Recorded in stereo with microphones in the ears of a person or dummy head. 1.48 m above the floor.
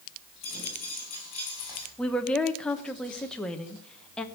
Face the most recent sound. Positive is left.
turn(degrees=5)  # may be behind; listen again after turning